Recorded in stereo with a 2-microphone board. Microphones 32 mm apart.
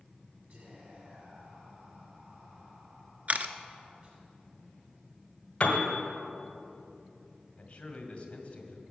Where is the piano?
35° left (ahead or behind), 1.5 m.